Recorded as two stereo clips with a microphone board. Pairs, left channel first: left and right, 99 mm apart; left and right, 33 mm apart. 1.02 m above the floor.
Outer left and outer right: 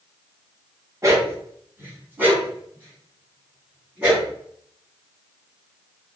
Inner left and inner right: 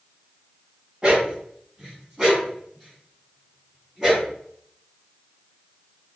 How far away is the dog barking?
About 1.9 m.